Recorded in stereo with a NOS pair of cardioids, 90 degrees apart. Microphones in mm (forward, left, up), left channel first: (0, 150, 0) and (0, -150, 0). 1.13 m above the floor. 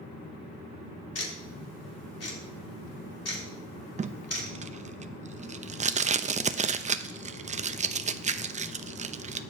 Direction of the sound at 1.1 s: 55° left.